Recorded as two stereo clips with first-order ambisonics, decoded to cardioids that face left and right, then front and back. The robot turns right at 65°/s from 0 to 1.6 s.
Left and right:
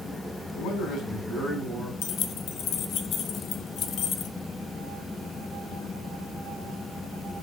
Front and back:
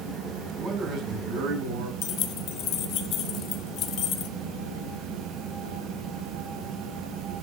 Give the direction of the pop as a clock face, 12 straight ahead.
No pop in this recording.